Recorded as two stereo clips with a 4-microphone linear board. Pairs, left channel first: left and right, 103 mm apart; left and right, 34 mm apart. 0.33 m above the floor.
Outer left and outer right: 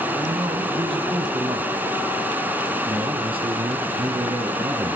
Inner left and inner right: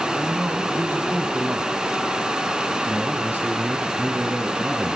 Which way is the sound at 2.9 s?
65° right (ahead or behind).